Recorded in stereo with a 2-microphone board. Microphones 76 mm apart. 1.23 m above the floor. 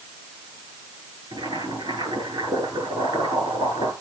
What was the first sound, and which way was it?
Boiling, 85° right.